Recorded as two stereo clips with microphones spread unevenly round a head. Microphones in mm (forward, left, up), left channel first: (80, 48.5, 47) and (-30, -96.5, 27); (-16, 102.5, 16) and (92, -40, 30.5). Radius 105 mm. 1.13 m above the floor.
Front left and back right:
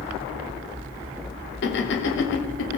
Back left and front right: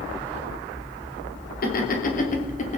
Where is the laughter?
90° left, 3 m; by 2.8 s 75° left, 3 m.